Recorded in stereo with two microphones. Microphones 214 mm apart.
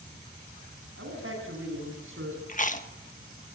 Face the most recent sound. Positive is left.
turn(degrees=35)  # may be behind; listen again after turning